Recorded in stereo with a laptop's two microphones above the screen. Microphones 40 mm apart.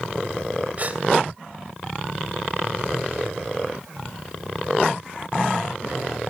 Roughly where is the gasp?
Right.